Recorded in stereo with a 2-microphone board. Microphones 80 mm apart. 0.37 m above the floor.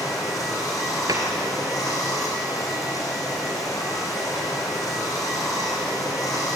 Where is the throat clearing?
No throat clearing in this recording.